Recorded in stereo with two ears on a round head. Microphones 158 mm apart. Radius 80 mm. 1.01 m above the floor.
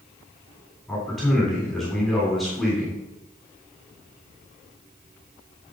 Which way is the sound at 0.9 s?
Centre (ahead or behind).